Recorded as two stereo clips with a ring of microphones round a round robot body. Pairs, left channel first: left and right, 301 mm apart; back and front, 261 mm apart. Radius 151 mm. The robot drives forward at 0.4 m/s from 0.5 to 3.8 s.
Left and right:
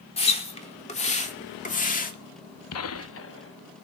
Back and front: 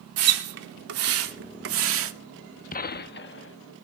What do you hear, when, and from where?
0.2 s a splash: 20° left, 2.5 m; by 2.1 s 30° left, 1.7 m
2.7 s a gunshot: 125° left, 0.8 m; by 3.6 s 140° left, 1.0 m